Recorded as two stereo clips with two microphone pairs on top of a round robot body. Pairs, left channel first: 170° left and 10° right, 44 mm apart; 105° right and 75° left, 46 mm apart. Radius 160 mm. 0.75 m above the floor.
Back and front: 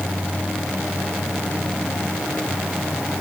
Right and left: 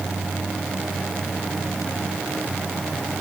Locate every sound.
Only background noise.